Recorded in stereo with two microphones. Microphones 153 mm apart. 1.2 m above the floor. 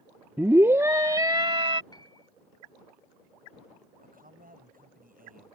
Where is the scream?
15° right (ahead or behind); by 1.8 s 35° right (ahead or behind).